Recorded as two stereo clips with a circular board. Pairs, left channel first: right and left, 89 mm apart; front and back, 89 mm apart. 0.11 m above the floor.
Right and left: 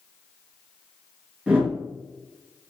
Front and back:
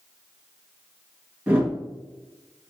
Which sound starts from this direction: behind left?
A whoosh, at 1.5 s.